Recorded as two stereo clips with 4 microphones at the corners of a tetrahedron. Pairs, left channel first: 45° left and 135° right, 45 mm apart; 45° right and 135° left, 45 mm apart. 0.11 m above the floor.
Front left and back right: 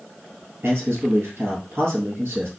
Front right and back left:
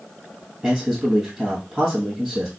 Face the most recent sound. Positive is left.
turn(degrees=-160)